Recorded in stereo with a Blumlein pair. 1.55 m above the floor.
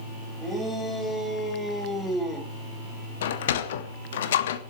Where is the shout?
10° left, 7 m; by 2.5 s 15° left, 5 m.